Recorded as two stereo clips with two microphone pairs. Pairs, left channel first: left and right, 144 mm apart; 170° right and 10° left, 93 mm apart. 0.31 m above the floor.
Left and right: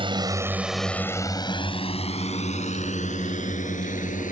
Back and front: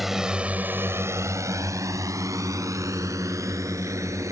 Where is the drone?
75° right; by 4.3 s 65° left.